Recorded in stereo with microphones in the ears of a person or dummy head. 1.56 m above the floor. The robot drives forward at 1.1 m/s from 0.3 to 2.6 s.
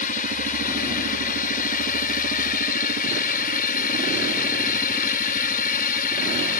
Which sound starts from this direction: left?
A drone, at 0.0 s.